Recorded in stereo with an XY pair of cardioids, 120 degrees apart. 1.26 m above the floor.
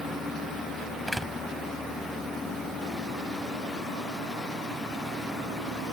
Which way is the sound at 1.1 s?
5° right.